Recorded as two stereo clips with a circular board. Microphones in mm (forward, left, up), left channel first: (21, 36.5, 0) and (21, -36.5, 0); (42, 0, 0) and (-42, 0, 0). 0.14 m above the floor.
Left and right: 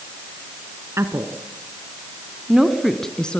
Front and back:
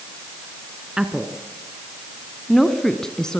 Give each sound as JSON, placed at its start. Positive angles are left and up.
{"t": 1.0, "sound": "a woman speaking", "azimuth_deg": -100, "distance_m": 1.5}